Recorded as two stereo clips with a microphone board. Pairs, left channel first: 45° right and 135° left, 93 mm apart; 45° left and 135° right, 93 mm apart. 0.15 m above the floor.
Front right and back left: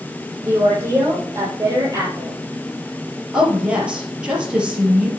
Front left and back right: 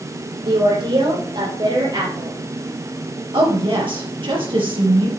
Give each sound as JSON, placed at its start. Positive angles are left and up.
{"t": 0.4, "sound": "a woman speaking", "azimuth_deg": -160, "distance_m": 5.0}
{"t": 3.3, "sound": "a woman speaking", "azimuth_deg": -145, "distance_m": 3.5}